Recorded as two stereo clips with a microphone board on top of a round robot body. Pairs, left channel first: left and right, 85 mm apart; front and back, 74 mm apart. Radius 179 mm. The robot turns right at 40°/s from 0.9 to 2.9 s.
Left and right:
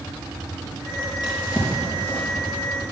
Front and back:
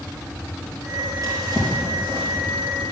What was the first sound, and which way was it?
A drawer, 125° left.